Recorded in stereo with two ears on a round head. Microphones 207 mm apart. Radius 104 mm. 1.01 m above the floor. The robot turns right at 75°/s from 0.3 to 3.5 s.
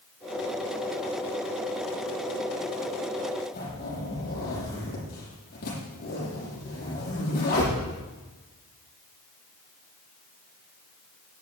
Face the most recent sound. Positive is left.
turn(degrees=45)  # may be behind; listen again after turning